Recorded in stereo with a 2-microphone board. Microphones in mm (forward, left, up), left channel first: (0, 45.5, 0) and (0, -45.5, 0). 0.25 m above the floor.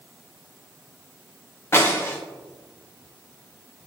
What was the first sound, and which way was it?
Breaking glass, 30° left (ahead or behind).